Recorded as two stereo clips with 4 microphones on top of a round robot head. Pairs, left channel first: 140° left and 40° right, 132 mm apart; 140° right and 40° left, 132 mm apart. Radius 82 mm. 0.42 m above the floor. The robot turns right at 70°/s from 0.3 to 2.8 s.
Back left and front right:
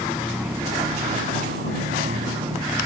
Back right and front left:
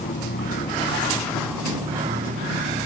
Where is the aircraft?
130° right; by 2.9 s 45° left.